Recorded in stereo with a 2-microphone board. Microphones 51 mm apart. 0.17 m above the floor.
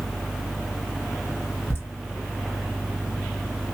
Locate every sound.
1.7 s laughter: 40° left (ahead or behind), 1.7 m